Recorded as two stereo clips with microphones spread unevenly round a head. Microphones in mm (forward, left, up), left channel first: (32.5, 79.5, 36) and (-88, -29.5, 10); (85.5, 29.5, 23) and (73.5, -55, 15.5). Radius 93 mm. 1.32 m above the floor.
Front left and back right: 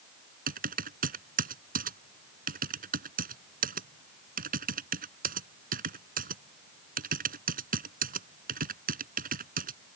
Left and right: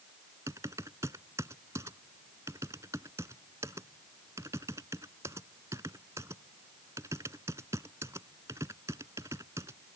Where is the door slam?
I don't hear a door slam.